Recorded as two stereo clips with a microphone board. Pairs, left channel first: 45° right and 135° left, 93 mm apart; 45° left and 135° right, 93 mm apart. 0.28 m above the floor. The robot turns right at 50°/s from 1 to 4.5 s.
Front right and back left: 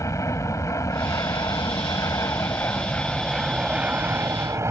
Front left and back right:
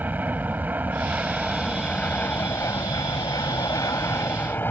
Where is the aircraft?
75° right; by 4.7 s 100° left.